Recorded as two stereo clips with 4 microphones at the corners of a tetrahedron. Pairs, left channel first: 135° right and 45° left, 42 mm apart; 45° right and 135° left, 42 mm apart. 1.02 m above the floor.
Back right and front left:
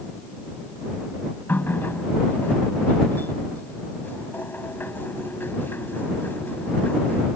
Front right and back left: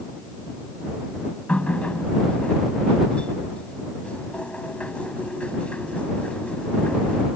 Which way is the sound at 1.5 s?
105° right.